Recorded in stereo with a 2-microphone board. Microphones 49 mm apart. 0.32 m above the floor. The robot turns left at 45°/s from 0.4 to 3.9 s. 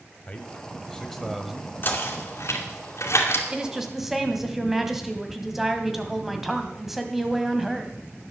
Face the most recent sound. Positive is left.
turn(degrees=-5)  # may be behind; listen again after turning